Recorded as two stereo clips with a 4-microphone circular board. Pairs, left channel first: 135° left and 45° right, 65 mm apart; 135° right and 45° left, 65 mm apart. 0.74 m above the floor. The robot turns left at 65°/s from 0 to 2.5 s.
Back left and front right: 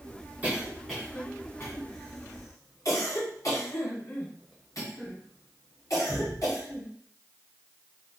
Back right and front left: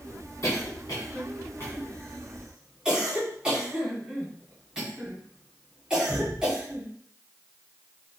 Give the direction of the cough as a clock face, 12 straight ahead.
3 o'clock.